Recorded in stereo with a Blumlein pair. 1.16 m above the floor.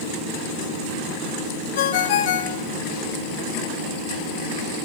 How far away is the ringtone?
About 1.3 m.